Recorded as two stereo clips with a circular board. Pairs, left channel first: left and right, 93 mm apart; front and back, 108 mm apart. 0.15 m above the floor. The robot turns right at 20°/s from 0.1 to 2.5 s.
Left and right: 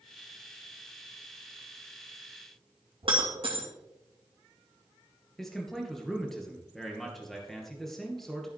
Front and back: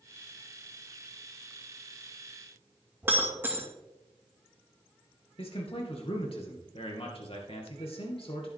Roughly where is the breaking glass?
Right.